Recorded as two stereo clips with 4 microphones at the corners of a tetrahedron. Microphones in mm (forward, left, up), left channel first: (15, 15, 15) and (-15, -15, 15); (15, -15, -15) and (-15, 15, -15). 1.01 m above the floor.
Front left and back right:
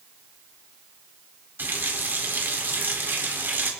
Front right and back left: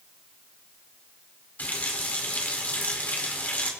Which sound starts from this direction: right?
A running tap, at 1.6 s.